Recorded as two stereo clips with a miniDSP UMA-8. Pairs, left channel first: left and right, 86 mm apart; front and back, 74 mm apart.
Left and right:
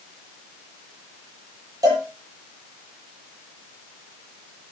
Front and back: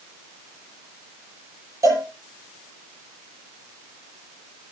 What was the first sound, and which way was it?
A cowbell, 135° right.